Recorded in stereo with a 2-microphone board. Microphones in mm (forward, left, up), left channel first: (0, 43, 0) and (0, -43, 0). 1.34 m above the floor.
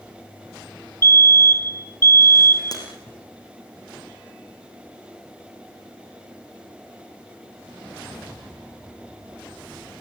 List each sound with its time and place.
1.0 s a fire alarm: 30° left (ahead or behind), 1.1 m
2.7 s breaking glass: 45° left (ahead or behind), 5.5 m